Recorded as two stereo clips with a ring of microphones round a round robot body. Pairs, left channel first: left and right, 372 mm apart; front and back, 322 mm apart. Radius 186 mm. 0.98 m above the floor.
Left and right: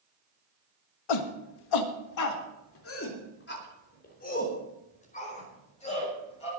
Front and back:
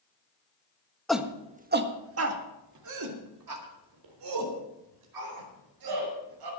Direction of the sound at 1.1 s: 90° left.